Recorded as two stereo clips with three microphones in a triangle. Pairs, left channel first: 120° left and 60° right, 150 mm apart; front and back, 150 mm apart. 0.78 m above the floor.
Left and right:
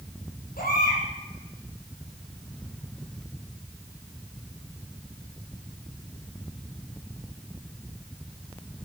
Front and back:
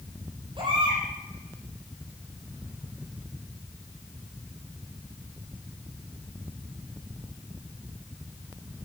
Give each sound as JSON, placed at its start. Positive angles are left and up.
{"t": 0.6, "sound": "a baby crying", "azimuth_deg": 125, "distance_m": 8.0}